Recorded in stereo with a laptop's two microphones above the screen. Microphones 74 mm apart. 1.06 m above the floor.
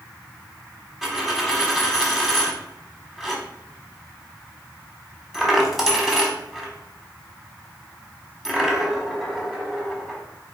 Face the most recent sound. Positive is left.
turn(degrees=-5)  # may be behind; listen again after turning